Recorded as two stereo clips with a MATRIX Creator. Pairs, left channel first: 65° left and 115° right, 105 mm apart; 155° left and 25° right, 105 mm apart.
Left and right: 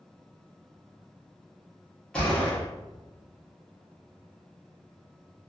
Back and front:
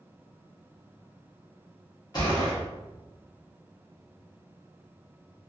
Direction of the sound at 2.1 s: 145° left.